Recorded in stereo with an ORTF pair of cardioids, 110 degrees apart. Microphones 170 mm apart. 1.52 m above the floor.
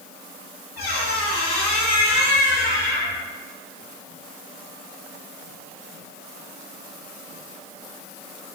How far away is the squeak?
About 1.8 m.